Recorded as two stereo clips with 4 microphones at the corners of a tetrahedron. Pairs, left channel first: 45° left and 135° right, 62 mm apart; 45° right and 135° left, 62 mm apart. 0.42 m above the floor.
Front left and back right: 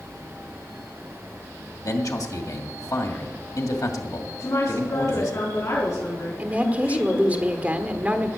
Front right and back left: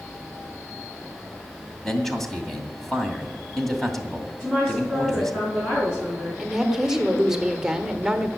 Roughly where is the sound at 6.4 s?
Behind.